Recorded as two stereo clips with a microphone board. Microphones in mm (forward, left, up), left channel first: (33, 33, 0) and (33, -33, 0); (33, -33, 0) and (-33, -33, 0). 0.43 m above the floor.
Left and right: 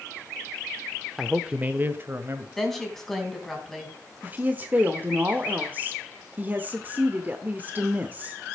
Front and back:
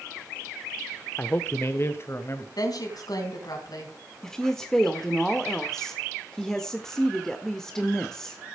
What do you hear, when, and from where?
1.2 s a man speaking: 10° right, 0.8 m; by 2.5 s 45° right, 1.8 m
2.6 s a woman speaking: 5° left, 4 m
4.2 s a woman speaking: 75° right, 1.2 m